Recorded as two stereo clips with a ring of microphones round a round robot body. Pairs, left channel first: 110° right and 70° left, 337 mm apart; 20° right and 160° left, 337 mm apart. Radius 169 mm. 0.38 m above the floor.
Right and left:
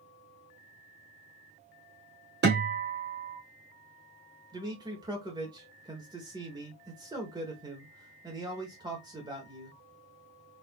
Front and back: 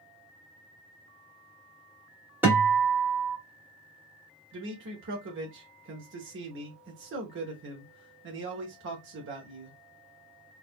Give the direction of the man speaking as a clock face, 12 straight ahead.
7 o'clock.